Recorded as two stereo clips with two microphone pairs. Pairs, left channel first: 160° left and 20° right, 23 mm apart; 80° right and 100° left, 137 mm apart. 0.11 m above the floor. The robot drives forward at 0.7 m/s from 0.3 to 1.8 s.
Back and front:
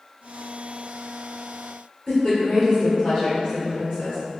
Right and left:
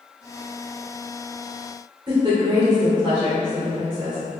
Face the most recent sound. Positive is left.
turn(degrees=125)